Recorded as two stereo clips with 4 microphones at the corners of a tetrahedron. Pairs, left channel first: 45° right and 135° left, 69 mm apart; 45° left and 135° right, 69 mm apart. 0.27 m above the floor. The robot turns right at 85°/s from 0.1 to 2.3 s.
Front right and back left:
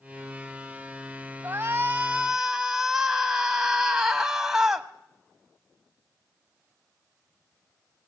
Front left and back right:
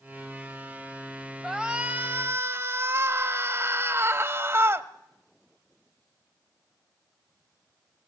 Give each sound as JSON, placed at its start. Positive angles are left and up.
{"t": 1.4, "sound": "a shout", "azimuth_deg": 140, "distance_m": 1.2}